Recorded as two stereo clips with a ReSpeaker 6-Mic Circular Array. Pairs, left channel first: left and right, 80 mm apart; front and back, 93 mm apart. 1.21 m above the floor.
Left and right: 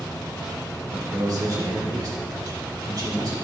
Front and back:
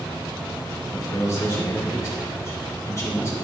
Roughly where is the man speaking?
Ahead right.